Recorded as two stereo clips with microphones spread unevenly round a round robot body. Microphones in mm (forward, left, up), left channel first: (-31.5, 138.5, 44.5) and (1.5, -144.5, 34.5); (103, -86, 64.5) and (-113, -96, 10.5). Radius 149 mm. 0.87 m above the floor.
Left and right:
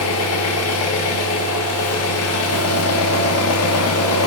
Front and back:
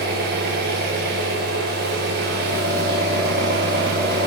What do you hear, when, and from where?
0.0 s an engine running: 135° left, 1.1 m